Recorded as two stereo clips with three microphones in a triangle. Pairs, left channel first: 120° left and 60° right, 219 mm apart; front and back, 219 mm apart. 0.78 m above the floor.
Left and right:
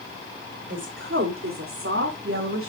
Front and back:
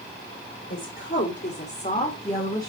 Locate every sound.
0.7 s a woman speaking: 30° right, 2.5 m; by 2.7 s 75° right, 3 m